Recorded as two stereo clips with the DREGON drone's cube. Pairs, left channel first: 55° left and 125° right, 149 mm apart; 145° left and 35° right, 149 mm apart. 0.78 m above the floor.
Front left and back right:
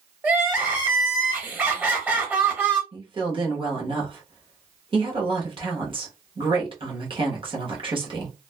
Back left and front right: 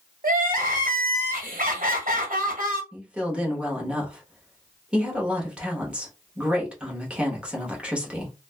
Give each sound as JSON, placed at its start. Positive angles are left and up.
{"t": 0.2, "sound": "crying", "azimuth_deg": -45, "distance_m": 1.2}
{"t": 2.9, "sound": "a woman speaking", "azimuth_deg": -110, "distance_m": 1.0}